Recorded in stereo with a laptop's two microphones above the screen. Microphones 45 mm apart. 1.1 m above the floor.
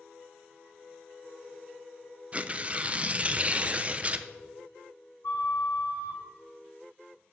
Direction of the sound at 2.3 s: 25° right (ahead or behind).